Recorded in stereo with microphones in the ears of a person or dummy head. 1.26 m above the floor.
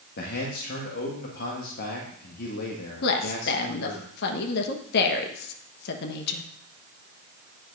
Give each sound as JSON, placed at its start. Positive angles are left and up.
{"t": 0.2, "sound": "a man speaking", "side_deg": 60, "distance_m": 1.4}
{"t": 3.0, "sound": "a woman speaking", "side_deg": 65, "distance_m": 1.0}